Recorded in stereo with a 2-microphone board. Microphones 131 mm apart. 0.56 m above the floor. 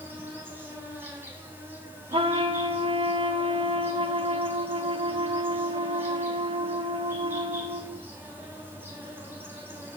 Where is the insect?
15° right (ahead or behind), 2.5 m.